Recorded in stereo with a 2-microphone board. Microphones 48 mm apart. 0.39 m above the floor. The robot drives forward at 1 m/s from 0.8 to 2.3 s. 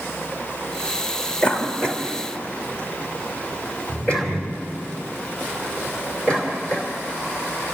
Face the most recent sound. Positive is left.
turn(degrees=20)  # may be behind; listen again after turning